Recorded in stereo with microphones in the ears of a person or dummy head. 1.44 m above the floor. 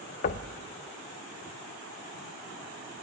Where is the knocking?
40° left (ahead or behind), 0.8 m.